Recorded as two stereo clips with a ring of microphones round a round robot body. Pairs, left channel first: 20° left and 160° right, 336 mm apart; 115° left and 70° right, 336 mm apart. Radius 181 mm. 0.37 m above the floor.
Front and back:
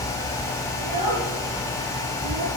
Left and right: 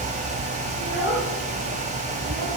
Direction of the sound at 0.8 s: 145° right.